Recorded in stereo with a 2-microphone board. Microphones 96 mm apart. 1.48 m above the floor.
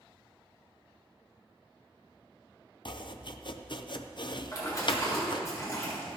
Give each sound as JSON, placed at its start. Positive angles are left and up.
{"t": 2.9, "sound": "chopping", "side_deg": 55, "distance_m": 0.6}
{"t": 4.5, "sound": "a splash", "side_deg": 35, "distance_m": 4.5}